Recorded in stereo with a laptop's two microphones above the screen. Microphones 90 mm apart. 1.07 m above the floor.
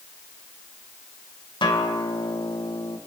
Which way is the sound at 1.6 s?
60° left (ahead or behind).